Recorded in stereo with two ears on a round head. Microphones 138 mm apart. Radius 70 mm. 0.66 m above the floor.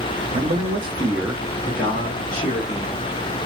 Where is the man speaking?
55° right (ahead or behind), 0.8 m; by 3.0 s 35° left (ahead or behind), 1.4 m.